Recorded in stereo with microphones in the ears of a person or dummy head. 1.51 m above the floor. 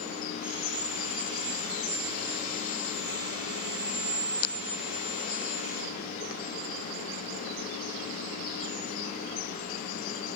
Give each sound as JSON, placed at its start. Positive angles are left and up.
{"t": 0.4, "sound": "sawing", "side_deg": -15, "distance_m": 2.5}